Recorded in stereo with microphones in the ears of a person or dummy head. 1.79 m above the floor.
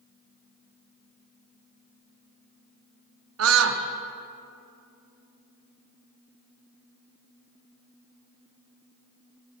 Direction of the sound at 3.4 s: 80° right.